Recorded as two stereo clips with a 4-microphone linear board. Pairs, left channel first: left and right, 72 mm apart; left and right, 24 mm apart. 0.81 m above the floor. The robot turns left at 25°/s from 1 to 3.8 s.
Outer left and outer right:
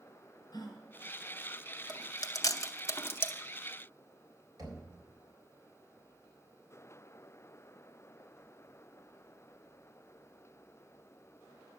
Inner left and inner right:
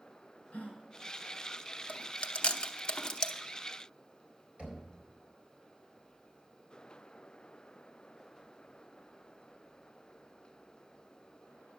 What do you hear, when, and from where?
0.5 s a gasp: 70° left (ahead or behind), 3.5 m
1.9 s chewing: 65° left (ahead or behind), 0.7 m; by 3.4 s 25° left (ahead or behind), 0.7 m
4.6 s knocking: 55° right (ahead or behind), 4 m